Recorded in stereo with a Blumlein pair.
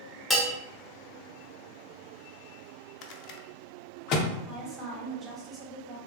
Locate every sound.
0.3 s a bell: 10° left, 1.0 m
3.0 s a rattle: 40° left, 0.5 m
4.5 s a woman speaking: 15° right, 1.6 m